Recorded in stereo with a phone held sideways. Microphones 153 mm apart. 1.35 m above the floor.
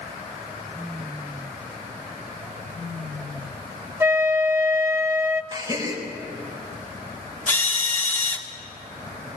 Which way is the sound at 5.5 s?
30° right (ahead or behind).